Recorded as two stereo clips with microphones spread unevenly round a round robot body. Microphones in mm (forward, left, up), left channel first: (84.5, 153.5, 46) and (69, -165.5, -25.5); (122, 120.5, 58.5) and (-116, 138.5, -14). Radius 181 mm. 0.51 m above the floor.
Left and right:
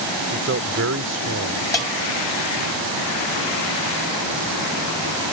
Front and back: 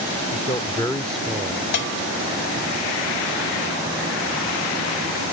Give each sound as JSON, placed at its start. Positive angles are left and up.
{"t": 0.3, "sound": "a man speaking", "azimuth_deg": -70}
{"t": 1.7, "sound": "a bell", "azimuth_deg": 5}